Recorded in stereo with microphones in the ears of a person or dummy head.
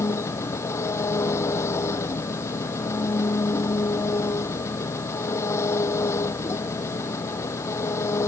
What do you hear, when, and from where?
0.0 s an engine running: 15° left (ahead or behind)